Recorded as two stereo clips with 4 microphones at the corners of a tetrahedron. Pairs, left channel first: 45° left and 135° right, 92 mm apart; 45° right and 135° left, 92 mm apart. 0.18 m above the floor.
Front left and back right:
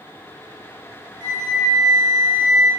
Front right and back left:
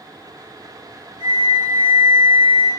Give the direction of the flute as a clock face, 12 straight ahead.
5 o'clock.